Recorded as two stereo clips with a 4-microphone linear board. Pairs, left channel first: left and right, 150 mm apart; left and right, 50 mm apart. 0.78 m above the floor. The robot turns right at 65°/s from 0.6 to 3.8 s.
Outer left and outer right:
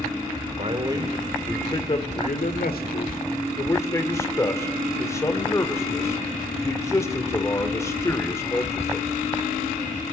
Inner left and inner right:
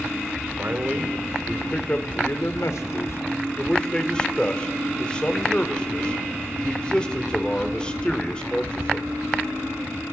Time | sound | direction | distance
0.6 | a man speaking | 45° right | 1.9 m